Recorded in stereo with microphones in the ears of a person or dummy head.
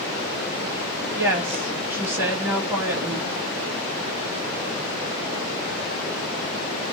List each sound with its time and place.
1.2 s a woman speaking: 20° right (ahead or behind), 0.7 m